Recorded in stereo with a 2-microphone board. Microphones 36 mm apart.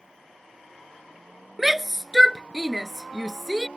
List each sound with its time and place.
1.6 s a shout: 10° right (ahead or behind)